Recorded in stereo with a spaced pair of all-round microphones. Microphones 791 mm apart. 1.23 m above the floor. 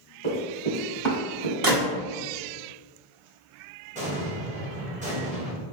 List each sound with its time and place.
0.2 s running footsteps: 30° right (ahead or behind), 2.0 m; by 1.5 s 55° right (ahead or behind), 2 m
1.6 s a gunshot: 30° right (ahead or behind), 0.8 m
4.0 s an explosion: 10° right (ahead or behind), 0.8 m